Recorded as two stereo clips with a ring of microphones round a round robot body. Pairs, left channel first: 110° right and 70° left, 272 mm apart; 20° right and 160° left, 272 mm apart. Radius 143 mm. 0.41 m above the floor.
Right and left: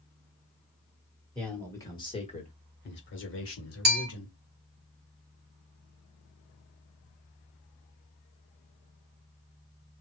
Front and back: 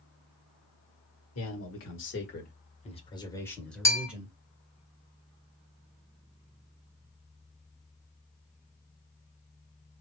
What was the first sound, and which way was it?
A man speaking, 25° right.